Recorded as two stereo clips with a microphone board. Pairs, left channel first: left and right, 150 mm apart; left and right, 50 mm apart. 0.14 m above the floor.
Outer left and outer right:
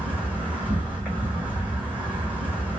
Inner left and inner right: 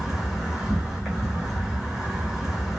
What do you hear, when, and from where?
0.0 s an insect: 10° right (ahead or behind), 1.3 m